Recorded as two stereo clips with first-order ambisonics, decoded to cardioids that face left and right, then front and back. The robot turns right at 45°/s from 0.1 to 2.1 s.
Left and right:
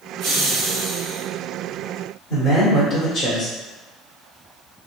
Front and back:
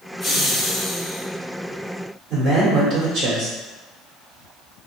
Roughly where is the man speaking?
Behind left.